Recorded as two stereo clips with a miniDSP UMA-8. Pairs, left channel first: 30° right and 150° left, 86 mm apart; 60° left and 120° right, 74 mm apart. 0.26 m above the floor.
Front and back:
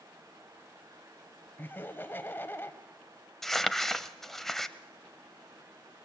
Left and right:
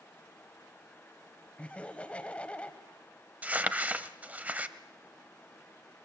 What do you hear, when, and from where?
1.6 s laughter: 5° left, 1.5 m
3.4 s crumpling: 110° right, 0.9 m